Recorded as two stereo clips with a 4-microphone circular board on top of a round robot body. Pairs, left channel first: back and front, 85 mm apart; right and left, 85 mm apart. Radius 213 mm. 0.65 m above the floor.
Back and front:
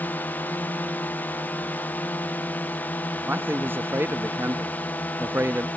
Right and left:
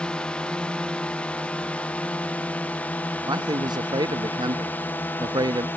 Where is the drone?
150° right; by 5.8 s 130° right.